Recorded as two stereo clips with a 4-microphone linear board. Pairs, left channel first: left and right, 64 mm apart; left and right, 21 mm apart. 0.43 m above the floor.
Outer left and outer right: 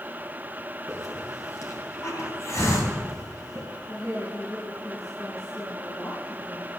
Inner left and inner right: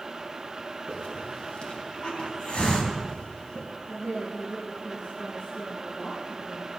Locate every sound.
0.9 s a hiss: 50° left (ahead or behind), 4 m
3.9 s a woman speaking: 60° left (ahead or behind), 4.5 m